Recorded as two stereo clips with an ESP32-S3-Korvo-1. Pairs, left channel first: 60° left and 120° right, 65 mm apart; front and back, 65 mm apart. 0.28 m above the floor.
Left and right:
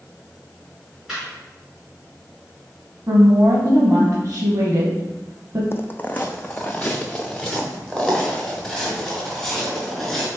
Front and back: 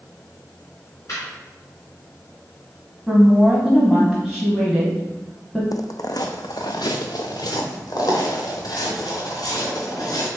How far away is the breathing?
No breathing in this recording.